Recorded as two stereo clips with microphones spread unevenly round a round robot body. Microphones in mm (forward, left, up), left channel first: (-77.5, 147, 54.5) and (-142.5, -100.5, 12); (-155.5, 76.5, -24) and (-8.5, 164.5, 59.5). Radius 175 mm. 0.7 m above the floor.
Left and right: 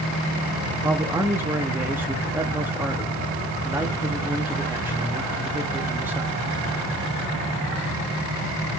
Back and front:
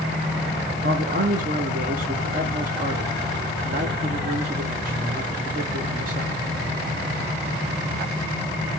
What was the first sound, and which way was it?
A man speaking, 35° right.